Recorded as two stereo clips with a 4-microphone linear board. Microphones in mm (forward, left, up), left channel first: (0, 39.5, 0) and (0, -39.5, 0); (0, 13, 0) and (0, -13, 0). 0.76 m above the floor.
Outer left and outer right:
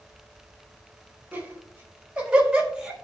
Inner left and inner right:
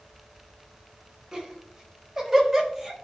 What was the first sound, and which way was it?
Laughter, 25° right (ahead or behind).